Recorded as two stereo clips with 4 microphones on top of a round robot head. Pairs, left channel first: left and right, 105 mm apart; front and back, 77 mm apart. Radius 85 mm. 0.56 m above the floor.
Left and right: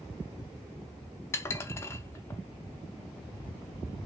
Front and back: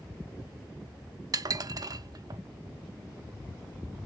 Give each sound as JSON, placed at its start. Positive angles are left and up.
{"t": 1.3, "sound": "dishes clattering", "azimuth_deg": 155, "distance_m": 0.6}